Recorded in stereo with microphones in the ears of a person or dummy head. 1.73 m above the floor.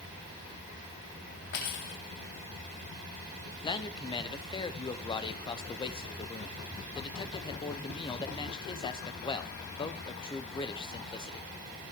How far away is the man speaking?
About 1.1 m.